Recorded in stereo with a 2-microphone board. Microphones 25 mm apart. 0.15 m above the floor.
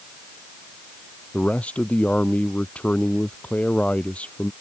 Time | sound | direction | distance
1.3 | a man speaking | 75° left (ahead or behind) | ?